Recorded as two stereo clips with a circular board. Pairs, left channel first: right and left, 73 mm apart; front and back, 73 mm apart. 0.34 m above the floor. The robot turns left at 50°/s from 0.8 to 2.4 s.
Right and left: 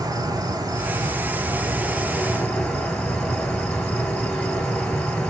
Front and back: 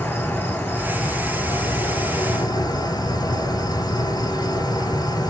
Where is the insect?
60° left, 0.9 m; by 5.3 s 20° right, 0.9 m.